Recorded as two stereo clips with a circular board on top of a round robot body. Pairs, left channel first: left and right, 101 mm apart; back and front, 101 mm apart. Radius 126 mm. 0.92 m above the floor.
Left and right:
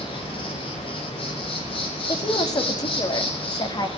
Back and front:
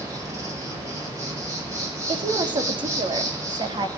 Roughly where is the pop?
I don't hear a pop.